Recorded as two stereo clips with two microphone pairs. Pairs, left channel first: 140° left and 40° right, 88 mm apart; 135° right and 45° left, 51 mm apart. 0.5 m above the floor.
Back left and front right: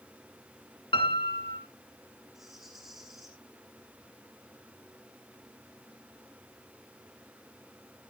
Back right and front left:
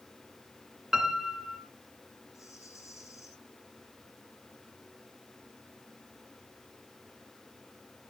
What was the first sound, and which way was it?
A piano, 125° left.